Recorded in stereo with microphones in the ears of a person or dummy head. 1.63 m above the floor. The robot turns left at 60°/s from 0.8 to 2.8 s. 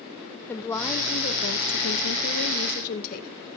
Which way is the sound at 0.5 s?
165° left.